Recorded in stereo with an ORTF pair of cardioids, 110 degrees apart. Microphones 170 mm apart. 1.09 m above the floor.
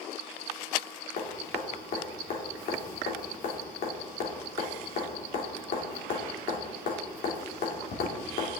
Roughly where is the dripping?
Ahead left.